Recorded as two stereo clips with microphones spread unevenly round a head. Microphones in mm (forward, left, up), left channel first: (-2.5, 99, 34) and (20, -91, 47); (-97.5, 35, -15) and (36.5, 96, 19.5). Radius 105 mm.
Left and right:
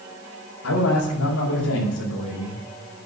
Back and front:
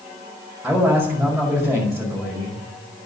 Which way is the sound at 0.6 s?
105° left.